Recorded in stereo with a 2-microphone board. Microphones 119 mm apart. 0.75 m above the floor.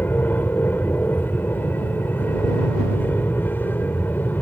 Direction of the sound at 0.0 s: 15° left (ahead or behind).